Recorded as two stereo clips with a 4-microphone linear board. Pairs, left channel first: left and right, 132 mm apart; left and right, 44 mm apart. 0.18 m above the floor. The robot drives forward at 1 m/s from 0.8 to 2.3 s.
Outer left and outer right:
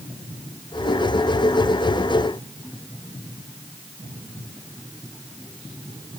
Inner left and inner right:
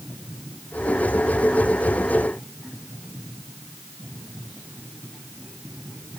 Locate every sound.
Only background noise.